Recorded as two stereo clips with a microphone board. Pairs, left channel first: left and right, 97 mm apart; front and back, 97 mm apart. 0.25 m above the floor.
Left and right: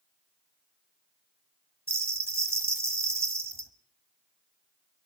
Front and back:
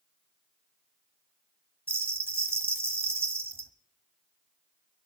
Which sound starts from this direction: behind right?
A bell, at 1.9 s.